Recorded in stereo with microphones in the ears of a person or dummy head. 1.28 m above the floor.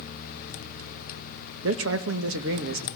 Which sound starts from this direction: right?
A man speaking, at 1.6 s.